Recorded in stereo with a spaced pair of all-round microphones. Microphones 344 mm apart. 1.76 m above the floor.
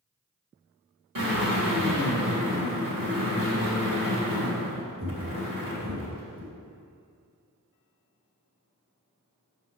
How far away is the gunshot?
No gunshot in this recording.